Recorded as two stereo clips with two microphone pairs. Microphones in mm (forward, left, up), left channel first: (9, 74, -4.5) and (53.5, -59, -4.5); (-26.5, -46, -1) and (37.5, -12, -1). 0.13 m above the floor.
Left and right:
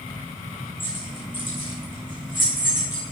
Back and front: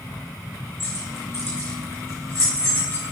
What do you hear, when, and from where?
0.8 s keys jangling: 160° left, 5.5 m; by 3.1 s 165° left, 7.5 m